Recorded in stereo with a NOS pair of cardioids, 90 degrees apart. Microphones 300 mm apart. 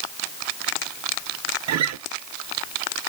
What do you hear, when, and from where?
1.7 s a guitar: 60° right, 0.9 m